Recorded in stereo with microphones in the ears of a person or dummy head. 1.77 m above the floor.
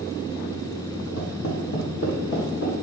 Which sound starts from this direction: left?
Footsteps, at 1.2 s.